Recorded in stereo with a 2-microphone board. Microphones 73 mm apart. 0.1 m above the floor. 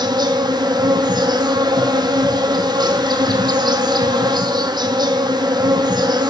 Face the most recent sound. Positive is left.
turn(degrees=-75)  # may be behind; listen again after turning